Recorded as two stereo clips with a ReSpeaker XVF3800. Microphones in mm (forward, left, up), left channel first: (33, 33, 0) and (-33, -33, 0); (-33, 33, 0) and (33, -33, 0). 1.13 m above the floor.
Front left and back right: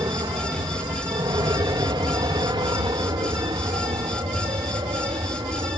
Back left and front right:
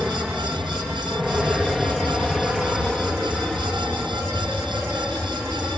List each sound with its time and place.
0.0 s an aircraft: 130° right; by 5.8 s 135° right